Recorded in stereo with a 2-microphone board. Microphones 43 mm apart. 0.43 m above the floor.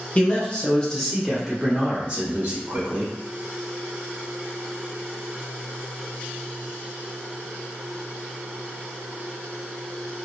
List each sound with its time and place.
0.1 s a man speaking: 30° left (ahead or behind), 1.1 m; by 3.1 s 45° right (ahead or behind), 1.2 m